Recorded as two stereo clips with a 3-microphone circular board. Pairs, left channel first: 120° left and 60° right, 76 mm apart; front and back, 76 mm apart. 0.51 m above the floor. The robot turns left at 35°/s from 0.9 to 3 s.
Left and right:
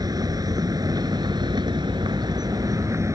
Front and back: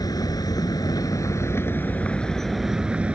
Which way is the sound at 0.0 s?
30° right.